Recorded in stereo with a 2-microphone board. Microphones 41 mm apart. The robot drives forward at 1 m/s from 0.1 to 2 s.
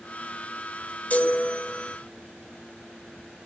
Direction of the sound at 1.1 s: 35° left (ahead or behind).